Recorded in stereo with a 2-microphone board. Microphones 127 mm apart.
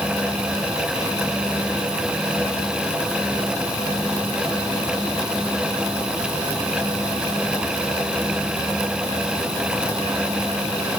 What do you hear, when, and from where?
Only background noise.